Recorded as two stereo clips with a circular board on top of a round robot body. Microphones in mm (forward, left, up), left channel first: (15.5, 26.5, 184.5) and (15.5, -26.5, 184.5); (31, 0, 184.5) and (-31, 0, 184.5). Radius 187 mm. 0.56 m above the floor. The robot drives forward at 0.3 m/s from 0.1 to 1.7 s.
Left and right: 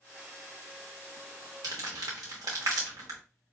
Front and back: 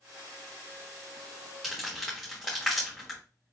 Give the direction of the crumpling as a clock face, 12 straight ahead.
3 o'clock.